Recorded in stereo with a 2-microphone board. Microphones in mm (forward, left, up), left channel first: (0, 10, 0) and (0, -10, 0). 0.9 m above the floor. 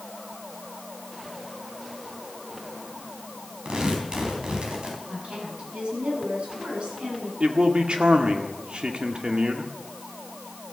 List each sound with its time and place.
3.6 s tearing paper: 45° right (ahead or behind), 4 m
5.1 s a woman speaking: 65° right (ahead or behind), 7.5 m
7.4 s a man speaking: 60° right (ahead or behind), 1.7 m